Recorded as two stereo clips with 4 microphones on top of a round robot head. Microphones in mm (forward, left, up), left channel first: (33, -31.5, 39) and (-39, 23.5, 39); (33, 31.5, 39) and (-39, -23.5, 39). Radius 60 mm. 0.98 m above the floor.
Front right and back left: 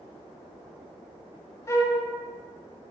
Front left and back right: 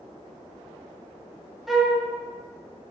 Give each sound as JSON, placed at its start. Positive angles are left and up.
{"t": 1.7, "sound": "a flute", "azimuth_deg": -60, "distance_m": 0.7}